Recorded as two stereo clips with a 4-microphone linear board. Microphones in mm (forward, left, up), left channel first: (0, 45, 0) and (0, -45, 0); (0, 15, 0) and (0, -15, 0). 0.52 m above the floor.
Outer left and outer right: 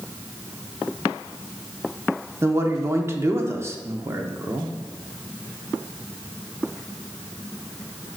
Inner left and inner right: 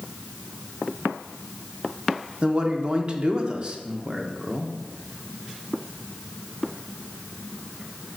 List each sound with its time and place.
2.4 s a man speaking: 30° right (ahead or behind), 0.7 m